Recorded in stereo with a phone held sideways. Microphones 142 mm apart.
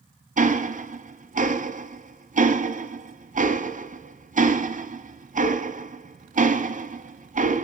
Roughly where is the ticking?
Right.